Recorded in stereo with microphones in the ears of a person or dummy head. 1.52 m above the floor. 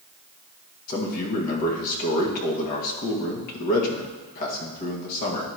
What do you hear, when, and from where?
0.9 s a man speaking: 45° left (ahead or behind), 1.8 m